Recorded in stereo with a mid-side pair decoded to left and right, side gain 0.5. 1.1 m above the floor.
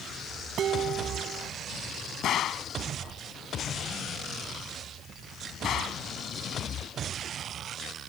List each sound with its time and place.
0.6 s dishes clattering: 55° right
2.2 s a gunshot: 60° left